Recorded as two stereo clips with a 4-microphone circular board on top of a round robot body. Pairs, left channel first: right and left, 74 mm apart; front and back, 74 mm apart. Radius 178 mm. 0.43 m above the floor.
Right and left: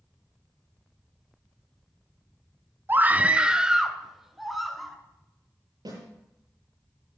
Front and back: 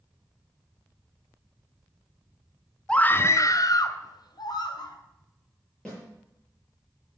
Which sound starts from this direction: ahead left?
A scream, at 2.9 s.